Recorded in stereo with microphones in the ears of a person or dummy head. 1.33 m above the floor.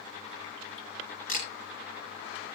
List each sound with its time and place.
1.3 s a camera shutter: 45° left (ahead or behind), 6.5 m